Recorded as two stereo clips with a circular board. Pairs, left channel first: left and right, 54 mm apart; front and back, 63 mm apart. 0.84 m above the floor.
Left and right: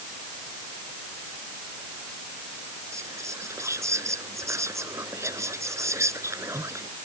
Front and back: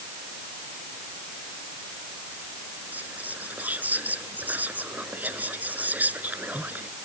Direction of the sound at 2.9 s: 120° right.